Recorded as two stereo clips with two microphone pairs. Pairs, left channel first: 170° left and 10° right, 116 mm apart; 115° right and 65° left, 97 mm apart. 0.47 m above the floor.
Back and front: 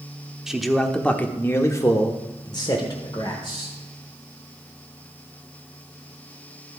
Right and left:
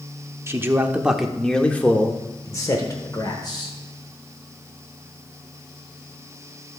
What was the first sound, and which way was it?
A man speaking, 70° left.